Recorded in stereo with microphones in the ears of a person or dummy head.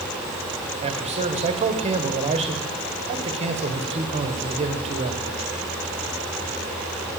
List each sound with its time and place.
0.8 s a man speaking: 35° right (ahead or behind), 1.3 m